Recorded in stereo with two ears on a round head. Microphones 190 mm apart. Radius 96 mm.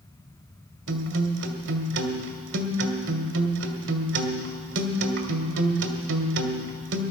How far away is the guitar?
About 1.4 m.